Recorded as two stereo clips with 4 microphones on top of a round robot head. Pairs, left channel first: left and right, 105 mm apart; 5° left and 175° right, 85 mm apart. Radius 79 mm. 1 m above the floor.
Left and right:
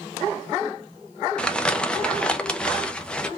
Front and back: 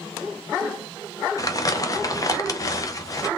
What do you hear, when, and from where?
1.4 s crumpling: 15° left, 0.8 m